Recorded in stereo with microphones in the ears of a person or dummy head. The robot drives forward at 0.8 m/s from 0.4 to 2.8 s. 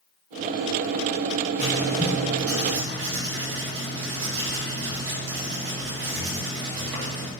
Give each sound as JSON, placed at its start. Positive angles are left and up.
{"t": 1.6, "sound": "writing", "side_deg": -45, "distance_m": 2.5}